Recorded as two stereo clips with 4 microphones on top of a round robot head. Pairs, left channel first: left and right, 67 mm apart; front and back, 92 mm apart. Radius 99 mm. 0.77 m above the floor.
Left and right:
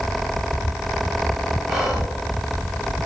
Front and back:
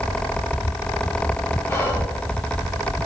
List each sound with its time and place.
1.7 s whispering: 5° right, 1.0 m